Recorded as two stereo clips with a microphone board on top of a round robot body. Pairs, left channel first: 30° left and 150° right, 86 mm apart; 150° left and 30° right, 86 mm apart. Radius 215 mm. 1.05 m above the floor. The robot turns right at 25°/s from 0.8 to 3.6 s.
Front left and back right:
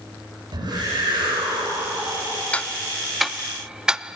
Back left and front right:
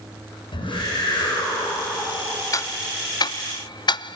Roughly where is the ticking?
Left.